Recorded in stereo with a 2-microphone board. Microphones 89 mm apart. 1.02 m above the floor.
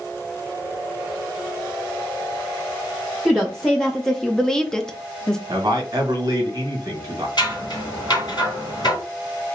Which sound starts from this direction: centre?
A woman speaking, at 3.2 s.